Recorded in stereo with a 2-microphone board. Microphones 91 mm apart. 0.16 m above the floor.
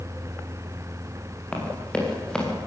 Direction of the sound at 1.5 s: 10° left (ahead or behind).